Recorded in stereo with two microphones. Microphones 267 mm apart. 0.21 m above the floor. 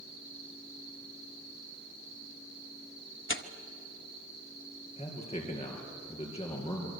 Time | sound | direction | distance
3.3 | tearing paper | 45° left (ahead or behind) | 0.9 m
5.0 | a man speaking | 25° left (ahead or behind) | 4 m